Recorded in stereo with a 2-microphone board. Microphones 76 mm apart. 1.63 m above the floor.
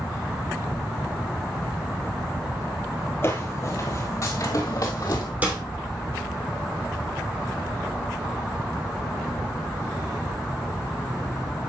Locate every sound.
3.2 s footsteps: 30° left (ahead or behind), 1.9 m; by 5.3 s 45° left (ahead or behind), 2.5 m
5.4 s a snare drum: 20° right (ahead or behind), 3 m